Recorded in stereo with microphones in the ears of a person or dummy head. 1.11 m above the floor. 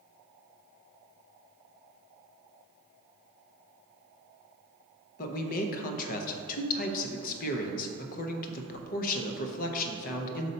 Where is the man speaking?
50° left (ahead or behind), 0.6 m.